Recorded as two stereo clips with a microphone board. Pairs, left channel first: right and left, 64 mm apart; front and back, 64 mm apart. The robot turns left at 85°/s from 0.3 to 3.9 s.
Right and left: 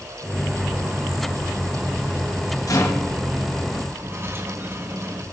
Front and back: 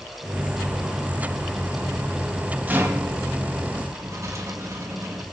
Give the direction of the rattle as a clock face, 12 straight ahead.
4 o'clock.